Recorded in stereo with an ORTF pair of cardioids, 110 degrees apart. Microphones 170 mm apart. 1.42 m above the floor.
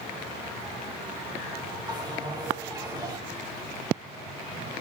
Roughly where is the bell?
Ahead right.